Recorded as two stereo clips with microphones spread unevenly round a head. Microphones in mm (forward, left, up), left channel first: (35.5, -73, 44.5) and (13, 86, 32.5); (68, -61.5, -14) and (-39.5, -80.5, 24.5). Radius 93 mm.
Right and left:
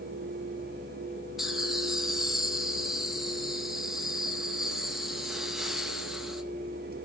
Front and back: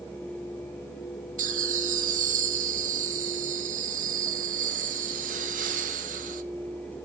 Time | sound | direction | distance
1.4 | laughter | 175° right | 1.9 m